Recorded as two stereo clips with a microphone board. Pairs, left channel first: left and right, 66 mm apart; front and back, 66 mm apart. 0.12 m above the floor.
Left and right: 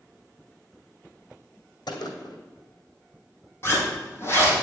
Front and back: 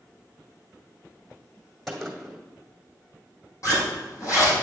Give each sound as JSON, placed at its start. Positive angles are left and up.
{"t": 1.9, "sound": "a gunshot", "azimuth_deg": 85, "distance_m": 1.8}
{"t": 3.6, "sound": "a zipper", "azimuth_deg": 35, "distance_m": 4.0}